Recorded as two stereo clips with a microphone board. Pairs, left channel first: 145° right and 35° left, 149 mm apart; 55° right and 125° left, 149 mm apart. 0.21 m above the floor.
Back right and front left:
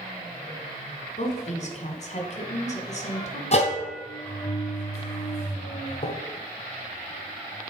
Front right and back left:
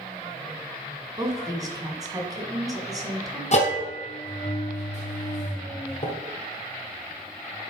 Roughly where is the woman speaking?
Behind.